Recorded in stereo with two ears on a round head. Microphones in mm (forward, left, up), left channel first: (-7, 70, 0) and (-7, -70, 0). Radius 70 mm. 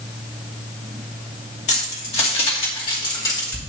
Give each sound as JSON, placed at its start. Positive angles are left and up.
{"t": 1.7, "sound": "keys jangling", "side_deg": 45, "distance_m": 2.5}